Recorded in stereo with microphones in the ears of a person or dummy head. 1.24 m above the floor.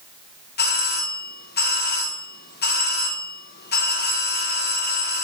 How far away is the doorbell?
About 1.1 m.